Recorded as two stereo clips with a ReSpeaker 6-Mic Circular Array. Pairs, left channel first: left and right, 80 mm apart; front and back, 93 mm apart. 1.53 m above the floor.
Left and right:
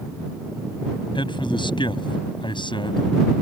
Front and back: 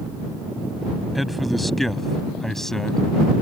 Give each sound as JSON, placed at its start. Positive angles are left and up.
{"t": 1.1, "sound": "a man speaking", "azimuth_deg": 90}